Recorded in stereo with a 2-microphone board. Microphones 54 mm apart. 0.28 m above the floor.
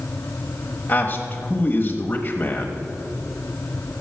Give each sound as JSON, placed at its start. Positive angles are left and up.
{"t": 0.9, "sound": "a man speaking", "side_deg": 35, "distance_m": 1.1}